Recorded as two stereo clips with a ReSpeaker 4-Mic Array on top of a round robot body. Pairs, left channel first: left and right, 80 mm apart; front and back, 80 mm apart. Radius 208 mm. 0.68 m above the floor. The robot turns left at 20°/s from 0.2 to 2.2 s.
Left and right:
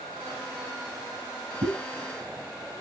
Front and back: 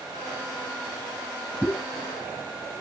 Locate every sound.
1.6 s a pop: 80° right, 0.8 m; by 1.8 s 85° right, 0.8 m